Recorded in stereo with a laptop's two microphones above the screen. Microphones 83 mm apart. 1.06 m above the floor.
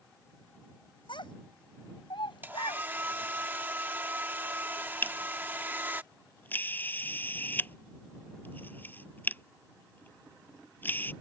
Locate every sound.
1.1 s a child speaking: 85° left; by 2.9 s 75° left (ahead or behind)
2.4 s a hair dryer: 25° right (ahead or behind)
5.0 s a camera shutter: 25° left (ahead or behind)